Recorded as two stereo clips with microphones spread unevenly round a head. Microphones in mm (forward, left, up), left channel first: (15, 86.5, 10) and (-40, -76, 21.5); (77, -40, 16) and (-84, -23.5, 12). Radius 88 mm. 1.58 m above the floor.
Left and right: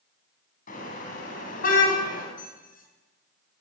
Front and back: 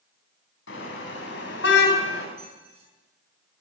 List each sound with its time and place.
0.7 s a car horn: 20° left, 8 m; by 2.3 s 25° left, 6.5 m
2.4 s a squeak: 115° left, 7.5 m